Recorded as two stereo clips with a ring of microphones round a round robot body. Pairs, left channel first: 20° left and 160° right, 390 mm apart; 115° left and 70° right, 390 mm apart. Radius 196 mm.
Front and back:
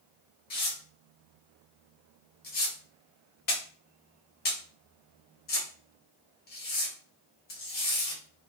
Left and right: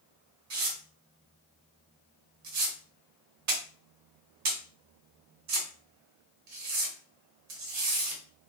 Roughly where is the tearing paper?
Ahead right.